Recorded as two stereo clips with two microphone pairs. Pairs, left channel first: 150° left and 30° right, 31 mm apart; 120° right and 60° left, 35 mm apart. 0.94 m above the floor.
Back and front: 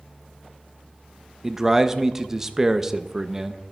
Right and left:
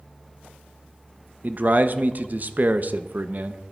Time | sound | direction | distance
1.4 | a man speaking | 45° left | 0.7 m